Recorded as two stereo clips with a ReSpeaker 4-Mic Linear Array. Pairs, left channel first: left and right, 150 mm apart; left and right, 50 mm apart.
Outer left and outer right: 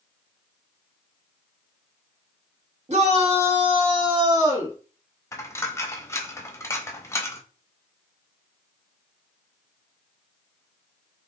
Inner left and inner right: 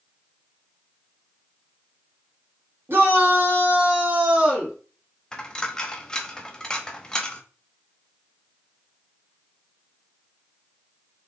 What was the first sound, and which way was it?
A shout, 50° right (ahead or behind).